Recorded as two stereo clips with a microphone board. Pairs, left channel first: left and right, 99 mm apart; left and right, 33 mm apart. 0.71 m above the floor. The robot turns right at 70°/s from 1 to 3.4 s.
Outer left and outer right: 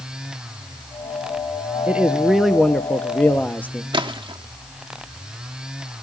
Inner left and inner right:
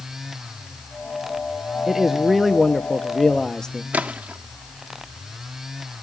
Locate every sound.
1.9 s a man speaking: 15° right (ahead or behind), 0.8 m; by 3.8 s 20° left (ahead or behind), 0.8 m
3.9 s a splash: 50° right (ahead or behind), 1.1 m